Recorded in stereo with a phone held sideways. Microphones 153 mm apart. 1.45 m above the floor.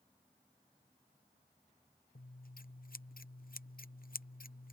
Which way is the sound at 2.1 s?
70° left (ahead or behind).